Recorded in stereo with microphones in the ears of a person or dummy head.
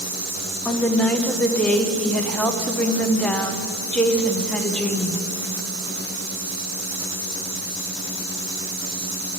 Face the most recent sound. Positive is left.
turn(degrees=0)  # may be behind; listen again after turning